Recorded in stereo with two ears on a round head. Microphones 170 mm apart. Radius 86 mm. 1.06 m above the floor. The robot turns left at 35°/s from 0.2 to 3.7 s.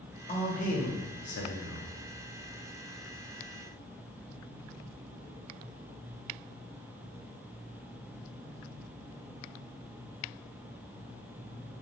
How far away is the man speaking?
About 0.6 m.